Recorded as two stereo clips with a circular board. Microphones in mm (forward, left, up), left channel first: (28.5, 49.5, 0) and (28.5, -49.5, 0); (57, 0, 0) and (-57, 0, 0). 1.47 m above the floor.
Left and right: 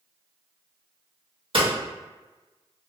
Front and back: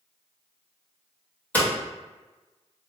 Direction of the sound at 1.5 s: 75° right.